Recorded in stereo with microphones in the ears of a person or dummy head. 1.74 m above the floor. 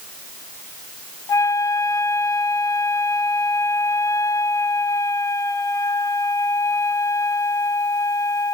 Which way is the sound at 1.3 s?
20° left (ahead or behind).